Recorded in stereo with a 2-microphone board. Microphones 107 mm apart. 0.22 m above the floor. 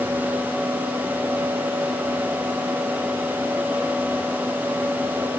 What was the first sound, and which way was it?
Only background noise.